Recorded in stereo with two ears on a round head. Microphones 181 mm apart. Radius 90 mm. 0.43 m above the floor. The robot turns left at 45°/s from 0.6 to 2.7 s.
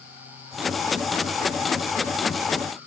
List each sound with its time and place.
Only background noise.